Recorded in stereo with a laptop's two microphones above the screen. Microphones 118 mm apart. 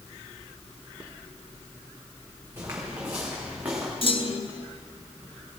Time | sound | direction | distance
2.6 | footsteps | 20° right (ahead or behind) | 3.5 m
4.0 | a clunk | 50° left (ahead or behind) | 1.3 m